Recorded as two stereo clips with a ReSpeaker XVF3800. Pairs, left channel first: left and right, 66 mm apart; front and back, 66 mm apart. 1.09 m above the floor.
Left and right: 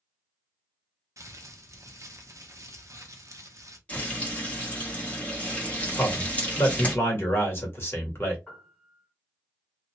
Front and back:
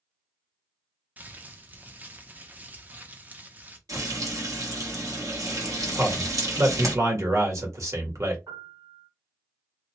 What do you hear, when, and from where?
1.2 s crumpling: 115° right, 0.6 m
3.9 s frying: 155° left, 1.1 m
6.0 s a man speaking: 140° left, 1.3 m
8.5 s a piano: 165° left, 1.5 m